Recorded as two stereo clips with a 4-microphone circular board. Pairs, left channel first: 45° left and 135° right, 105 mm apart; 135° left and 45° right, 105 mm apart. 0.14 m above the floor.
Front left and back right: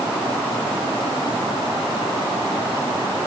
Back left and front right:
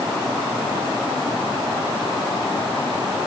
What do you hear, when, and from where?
Only background noise.